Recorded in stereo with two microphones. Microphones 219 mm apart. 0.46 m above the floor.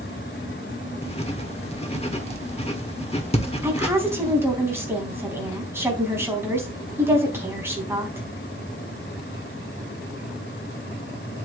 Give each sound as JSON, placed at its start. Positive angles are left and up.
{"t": 1.0, "sound": "writing", "side_deg": 30, "distance_m": 1.4}
{"t": 3.6, "sound": "a woman speaking", "side_deg": -10, "distance_m": 3.5}